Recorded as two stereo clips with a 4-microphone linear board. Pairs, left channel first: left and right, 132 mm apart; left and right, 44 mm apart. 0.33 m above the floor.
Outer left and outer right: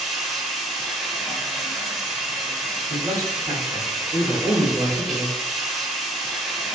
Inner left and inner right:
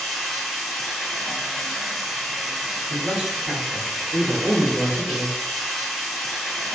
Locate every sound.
0.0 s running water: centre (ahead or behind), 1.3 m
2.9 s a man speaking: 25° right (ahead or behind), 1.1 m